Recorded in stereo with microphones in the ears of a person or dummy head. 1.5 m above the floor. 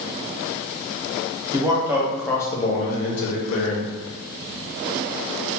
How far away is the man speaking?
About 0.8 m.